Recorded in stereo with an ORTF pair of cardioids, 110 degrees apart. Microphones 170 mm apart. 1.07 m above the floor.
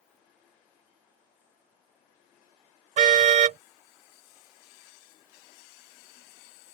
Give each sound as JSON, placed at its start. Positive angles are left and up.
{"t": 3.0, "sound": "a car horn", "azimuth_deg": -50}